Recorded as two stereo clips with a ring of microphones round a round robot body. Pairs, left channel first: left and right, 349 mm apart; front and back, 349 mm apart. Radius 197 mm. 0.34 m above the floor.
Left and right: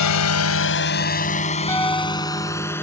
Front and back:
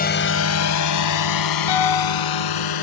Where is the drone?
60° left; by 2.8 s 5° left.